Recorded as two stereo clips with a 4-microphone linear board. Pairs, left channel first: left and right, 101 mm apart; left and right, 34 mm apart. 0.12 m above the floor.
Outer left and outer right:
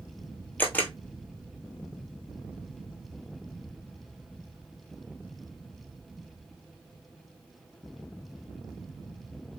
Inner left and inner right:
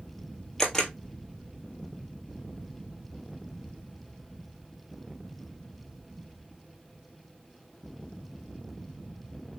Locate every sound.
0.6 s a camera shutter: 15° left (ahead or behind), 1.1 m